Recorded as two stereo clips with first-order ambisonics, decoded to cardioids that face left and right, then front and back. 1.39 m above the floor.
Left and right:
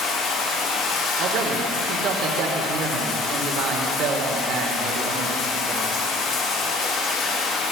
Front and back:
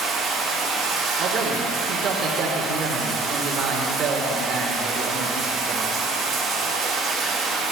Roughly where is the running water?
Behind left.